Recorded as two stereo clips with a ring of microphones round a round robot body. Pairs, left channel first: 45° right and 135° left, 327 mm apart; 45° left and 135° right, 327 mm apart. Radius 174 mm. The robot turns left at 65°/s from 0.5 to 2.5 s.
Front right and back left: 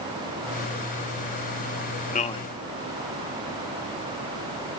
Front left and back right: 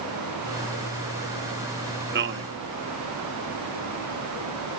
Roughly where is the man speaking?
Right.